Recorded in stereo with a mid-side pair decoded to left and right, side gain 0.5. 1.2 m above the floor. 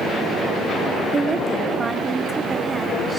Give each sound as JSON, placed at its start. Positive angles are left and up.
{"t": 1.1, "sound": "a woman speaking", "azimuth_deg": -30, "distance_m": 2.5}